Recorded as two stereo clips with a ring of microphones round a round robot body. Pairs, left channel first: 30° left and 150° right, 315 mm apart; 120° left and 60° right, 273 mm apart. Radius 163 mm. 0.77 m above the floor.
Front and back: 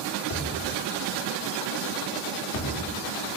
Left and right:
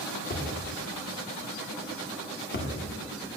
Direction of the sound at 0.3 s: 65° left.